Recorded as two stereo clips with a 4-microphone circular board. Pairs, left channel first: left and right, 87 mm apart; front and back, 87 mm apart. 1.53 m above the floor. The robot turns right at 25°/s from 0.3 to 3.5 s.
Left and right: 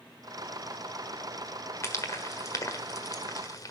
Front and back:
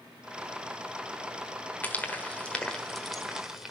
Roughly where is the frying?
Ahead left.